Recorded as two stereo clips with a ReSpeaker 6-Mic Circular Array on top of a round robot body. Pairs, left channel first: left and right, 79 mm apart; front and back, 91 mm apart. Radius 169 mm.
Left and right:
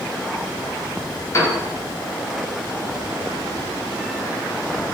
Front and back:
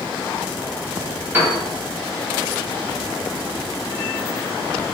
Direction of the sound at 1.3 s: 125° left.